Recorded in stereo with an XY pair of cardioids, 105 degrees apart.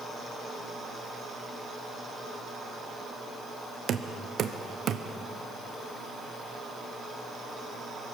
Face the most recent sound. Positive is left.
turn(degrees=-60)